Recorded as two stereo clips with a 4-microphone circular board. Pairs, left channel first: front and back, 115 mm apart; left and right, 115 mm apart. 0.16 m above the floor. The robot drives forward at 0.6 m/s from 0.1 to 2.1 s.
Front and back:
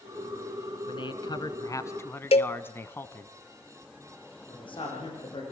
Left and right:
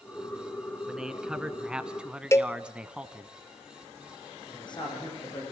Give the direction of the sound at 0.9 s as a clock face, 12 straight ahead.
12 o'clock.